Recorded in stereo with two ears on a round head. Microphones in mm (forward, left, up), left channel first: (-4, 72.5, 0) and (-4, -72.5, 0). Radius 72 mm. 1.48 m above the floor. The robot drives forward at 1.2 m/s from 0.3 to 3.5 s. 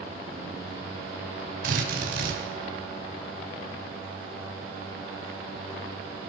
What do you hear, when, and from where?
1.6 s a drill: 55° right (ahead or behind), 6.5 m; by 2.4 s 65° right (ahead or behind), 6 m